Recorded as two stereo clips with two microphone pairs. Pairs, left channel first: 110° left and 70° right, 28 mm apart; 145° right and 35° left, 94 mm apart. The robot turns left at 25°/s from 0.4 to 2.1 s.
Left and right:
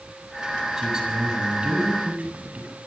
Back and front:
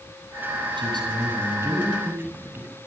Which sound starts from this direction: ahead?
A man speaking, at 0.8 s.